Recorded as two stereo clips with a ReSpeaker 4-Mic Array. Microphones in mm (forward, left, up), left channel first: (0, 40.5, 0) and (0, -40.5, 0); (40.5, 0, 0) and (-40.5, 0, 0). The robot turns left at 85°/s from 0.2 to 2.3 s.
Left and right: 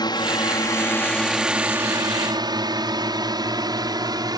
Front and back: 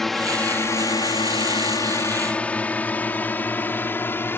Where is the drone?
85° left; by 4.4 s 60° right.